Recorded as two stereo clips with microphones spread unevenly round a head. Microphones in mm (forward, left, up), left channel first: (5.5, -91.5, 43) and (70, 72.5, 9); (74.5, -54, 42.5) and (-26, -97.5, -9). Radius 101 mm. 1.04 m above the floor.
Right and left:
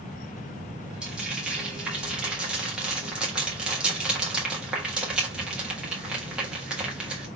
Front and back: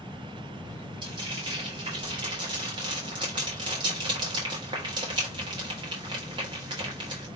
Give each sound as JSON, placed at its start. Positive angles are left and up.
{"t": 1.0, "sound": "frying", "azimuth_deg": 150, "distance_m": 1.2}